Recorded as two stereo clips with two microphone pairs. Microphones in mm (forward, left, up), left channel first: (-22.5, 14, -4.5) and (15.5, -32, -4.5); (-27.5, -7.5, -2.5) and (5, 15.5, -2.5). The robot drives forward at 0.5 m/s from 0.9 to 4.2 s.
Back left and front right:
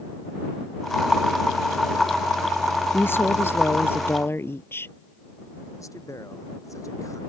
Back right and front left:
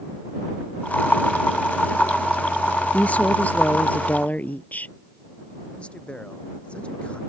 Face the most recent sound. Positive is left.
turn(degrees=155)